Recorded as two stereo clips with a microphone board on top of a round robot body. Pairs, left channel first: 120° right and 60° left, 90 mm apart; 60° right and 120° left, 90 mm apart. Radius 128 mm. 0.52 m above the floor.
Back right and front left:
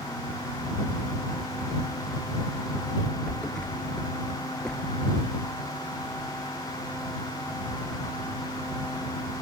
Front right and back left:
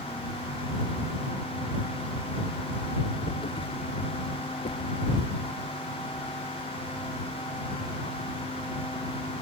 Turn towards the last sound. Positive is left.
turn(degrees=-35)